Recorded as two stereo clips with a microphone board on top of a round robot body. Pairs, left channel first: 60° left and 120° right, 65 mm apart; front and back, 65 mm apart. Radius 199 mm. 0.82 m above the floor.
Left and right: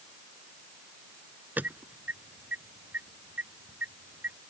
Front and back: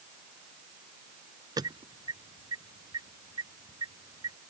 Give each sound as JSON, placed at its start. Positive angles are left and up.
{"t": 1.6, "sound": "an alarm", "azimuth_deg": 180}